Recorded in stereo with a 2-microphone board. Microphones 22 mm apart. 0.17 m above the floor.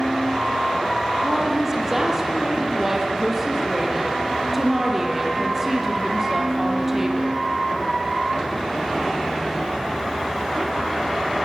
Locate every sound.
1.2 s a woman speaking: 25° right (ahead or behind), 4.5 m